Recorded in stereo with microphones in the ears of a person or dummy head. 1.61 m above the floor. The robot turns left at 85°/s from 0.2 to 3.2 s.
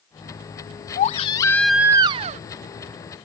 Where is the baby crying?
60° left; by 2.4 s 65° right.